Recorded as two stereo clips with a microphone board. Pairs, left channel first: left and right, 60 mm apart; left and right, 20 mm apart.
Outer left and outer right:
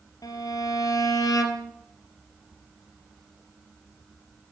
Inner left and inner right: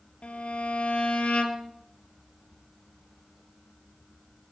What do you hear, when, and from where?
0.2 s a violin: 85° left, 3 m